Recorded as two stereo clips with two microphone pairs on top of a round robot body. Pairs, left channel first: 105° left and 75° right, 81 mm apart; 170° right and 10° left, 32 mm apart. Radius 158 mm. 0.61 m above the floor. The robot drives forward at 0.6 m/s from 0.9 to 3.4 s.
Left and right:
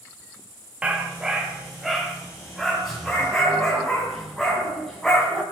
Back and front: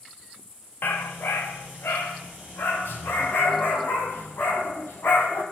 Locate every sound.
0.8 s a dog barking: 155° right, 1.1 m; by 5.4 s 170° right, 2.5 m